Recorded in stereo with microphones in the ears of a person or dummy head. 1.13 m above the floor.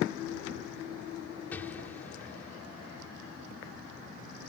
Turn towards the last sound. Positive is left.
turn(degrees=15)  # may be behind; listen again after turning